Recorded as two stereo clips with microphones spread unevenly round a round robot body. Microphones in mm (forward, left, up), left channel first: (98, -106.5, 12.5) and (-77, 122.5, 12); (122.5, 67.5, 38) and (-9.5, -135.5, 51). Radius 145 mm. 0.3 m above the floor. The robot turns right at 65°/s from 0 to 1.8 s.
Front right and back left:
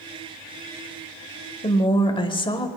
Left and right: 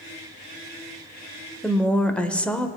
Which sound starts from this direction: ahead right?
A woman speaking, at 1.6 s.